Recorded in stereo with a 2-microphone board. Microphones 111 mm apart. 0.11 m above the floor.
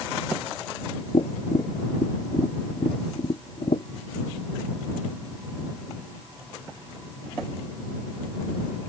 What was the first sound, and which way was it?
Tapping, 65° left (ahead or behind).